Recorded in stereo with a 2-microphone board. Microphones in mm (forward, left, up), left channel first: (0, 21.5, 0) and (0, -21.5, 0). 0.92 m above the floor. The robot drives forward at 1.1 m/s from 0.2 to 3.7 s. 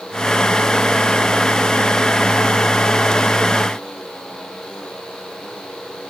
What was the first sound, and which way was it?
Only background noise.